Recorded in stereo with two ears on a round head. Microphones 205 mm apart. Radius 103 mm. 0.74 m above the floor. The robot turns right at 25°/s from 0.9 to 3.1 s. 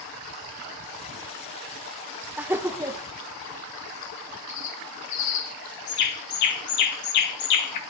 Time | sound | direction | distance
2.4 | laughter | 5° right (ahead or behind) | 0.5 m
4.5 | a bird | 80° left | 1.7 m